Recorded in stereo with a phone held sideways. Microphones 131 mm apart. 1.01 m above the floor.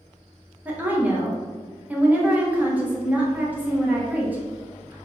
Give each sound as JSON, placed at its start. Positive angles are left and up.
{"t": 0.7, "sound": "a woman speaking", "side_deg": -10, "distance_m": 0.6}